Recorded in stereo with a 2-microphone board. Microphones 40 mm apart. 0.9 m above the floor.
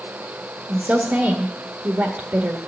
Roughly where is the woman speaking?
Right.